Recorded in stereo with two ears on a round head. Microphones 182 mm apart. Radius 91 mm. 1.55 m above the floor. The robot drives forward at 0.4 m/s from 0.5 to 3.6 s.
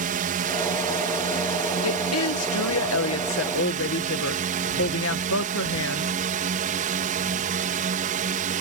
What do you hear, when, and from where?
0.0 s a drone: 45° right (ahead or behind); by 8.6 s 40° right (ahead or behind)
1.8 s a woman speaking: 80° left; by 6.1 s 70° left (ahead or behind)